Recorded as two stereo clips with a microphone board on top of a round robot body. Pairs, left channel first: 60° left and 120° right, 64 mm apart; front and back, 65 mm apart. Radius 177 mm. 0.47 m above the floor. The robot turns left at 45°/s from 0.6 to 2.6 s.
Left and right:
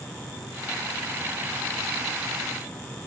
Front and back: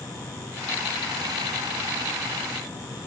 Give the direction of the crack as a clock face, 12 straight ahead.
No crack in this recording.